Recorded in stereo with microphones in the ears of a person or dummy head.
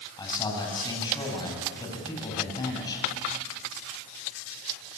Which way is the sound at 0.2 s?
25° left (ahead or behind).